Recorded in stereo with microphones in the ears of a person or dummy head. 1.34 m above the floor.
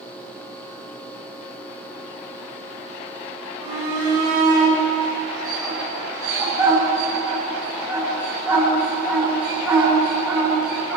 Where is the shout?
35° right (ahead or behind), 4.5 m; by 11.0 s 5° right (ahead or behind), 10.5 m.